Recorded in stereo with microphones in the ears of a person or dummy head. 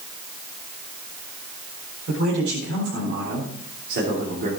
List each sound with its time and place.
2.1 s a man speaking: 80° right, 4.5 m; by 4.5 s 55° right (ahead or behind), 3 m